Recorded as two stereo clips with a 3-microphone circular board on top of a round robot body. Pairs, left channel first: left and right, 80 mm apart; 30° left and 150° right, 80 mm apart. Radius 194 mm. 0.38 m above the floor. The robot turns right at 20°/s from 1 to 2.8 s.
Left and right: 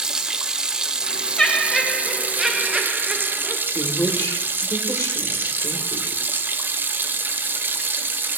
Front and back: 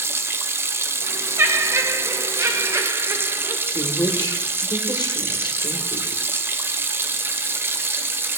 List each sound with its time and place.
0.0 s running water: 165° right, 0.9 m; by 8.4 s 125° right, 0.9 m
1.4 s laughter: 165° left, 1.0 m; by 3.6 s 165° right, 1.0 m
3.7 s a woman speaking: 45° left, 1.8 m